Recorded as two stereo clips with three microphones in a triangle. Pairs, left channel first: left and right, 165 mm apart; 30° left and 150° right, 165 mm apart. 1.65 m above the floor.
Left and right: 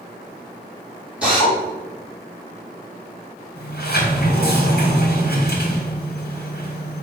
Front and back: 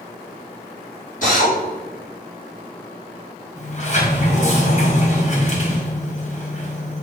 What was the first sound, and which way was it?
A drill, 5° right.